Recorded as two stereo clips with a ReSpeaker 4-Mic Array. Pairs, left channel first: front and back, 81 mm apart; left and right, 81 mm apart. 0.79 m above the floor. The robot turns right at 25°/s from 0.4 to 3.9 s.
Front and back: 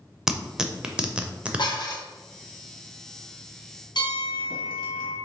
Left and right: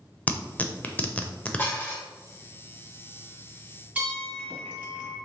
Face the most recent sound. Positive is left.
turn(degrees=-20)